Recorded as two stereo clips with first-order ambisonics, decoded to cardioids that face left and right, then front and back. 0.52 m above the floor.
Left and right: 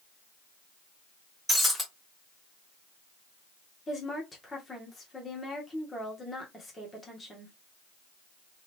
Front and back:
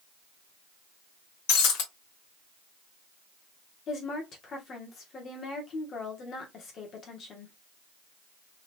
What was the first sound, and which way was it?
Breaking glass, 5° left.